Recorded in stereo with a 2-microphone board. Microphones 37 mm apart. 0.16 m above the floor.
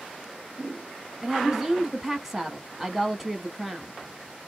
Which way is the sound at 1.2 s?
5° right (ahead or behind).